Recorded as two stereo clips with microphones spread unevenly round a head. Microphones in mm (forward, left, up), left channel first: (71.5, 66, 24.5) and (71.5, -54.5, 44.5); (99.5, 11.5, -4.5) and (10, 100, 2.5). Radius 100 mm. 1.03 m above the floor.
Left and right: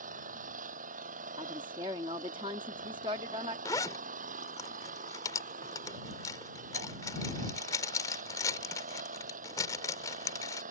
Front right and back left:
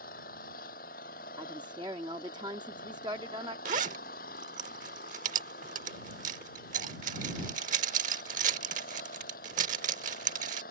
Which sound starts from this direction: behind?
A zipper, at 3.6 s.